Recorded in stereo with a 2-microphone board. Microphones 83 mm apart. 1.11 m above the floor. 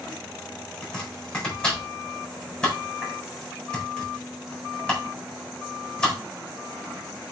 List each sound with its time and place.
0.8 s chopping: 10° left (ahead or behind), 4 m